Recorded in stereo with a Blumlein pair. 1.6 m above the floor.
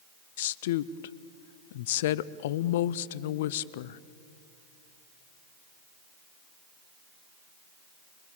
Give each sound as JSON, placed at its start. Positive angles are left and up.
{"t": 0.4, "sound": "a woman speaking", "azimuth_deg": 55, "distance_m": 0.6}